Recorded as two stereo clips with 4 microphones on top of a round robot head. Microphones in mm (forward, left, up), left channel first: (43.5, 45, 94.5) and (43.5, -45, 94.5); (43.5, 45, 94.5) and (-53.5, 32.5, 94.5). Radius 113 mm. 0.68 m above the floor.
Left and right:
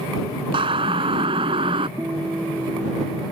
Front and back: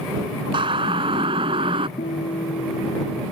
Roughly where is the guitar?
Ahead.